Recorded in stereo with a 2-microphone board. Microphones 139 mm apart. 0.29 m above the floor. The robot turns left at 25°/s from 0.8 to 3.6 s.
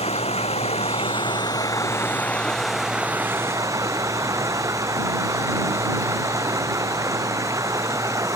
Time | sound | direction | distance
0.0 | running water | 50° left | ?